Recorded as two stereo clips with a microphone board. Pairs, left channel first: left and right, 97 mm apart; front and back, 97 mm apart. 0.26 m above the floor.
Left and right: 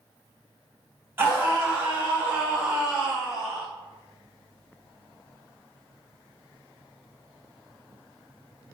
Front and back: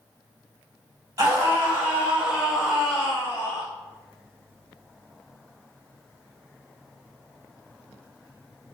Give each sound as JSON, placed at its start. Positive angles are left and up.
{"t": 1.2, "sound": "a scream", "azimuth_deg": -145, "distance_m": 1.6}